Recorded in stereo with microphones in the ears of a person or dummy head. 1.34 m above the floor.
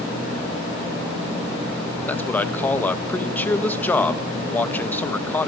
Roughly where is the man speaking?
Centre.